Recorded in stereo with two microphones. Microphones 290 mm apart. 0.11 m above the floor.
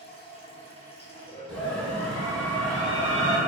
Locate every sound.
0.0 s running water: 20° left (ahead or behind), 0.8 m
1.5 s a scream: centre (ahead or behind), 1.6 m